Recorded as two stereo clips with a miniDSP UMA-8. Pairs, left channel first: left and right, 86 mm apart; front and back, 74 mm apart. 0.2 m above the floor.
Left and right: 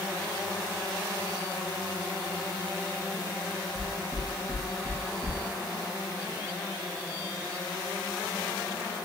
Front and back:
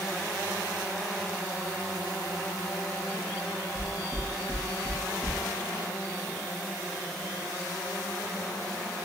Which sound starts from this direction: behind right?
Knocking, at 3.8 s.